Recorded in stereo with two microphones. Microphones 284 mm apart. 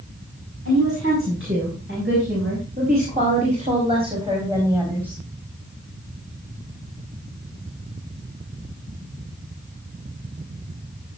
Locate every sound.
0.7 s a woman speaking: 50° right (ahead or behind), 7 m; by 5.2 s 5° right (ahead or behind), 5 m